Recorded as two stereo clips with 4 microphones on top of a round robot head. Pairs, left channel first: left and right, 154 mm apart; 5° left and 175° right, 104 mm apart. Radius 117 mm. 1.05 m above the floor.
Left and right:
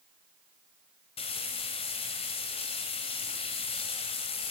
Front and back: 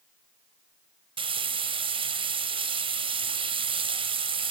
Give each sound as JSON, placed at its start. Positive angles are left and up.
{"t": 1.2, "sound": "frying", "azimuth_deg": 150, "distance_m": 1.9}